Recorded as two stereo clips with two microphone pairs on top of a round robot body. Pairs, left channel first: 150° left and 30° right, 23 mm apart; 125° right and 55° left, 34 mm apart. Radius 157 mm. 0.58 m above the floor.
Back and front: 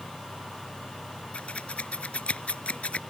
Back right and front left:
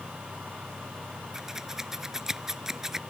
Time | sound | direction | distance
1.3 | scissors | 130° left | ?